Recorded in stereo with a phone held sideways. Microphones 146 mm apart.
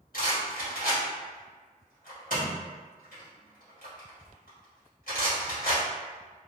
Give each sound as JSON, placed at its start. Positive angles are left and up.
{"t": 0.1, "sound": "a rattle", "side_deg": 75, "distance_m": 1.5}